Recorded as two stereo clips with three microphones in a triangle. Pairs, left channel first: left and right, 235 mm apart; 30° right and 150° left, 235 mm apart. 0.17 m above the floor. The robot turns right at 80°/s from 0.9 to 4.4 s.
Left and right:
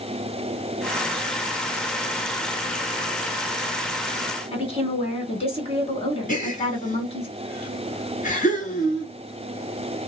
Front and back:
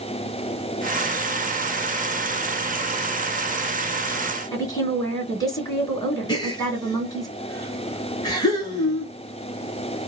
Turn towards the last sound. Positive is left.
turn(degrees=40)